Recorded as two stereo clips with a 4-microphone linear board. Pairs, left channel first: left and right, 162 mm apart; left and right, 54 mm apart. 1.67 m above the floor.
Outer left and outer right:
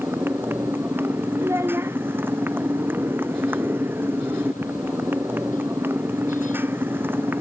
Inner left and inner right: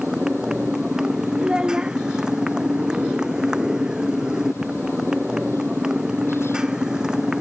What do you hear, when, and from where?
0.0 s a motorcycle: 15° right (ahead or behind)
1.4 s a child speaking: 15° right (ahead or behind)